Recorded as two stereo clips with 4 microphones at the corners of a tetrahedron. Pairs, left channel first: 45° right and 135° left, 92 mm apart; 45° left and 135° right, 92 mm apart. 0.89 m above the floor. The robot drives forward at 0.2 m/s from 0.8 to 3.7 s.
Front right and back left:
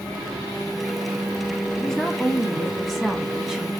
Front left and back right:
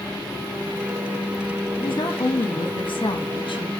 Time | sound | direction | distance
1.8 | a woman speaking | 40° left | 1.3 m